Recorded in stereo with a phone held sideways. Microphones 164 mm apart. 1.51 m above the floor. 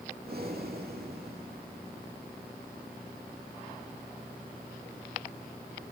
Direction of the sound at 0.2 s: 70° right (ahead or behind).